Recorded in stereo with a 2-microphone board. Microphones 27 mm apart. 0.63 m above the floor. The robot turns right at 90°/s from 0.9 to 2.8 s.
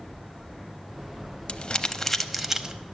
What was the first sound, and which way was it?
Crumpling, 40° left (ahead or behind).